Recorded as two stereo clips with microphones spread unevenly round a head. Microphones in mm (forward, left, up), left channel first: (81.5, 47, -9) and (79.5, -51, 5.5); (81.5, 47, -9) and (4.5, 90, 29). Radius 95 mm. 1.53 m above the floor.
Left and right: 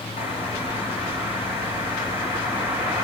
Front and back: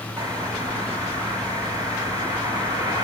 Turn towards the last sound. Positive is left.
turn(degrees=110)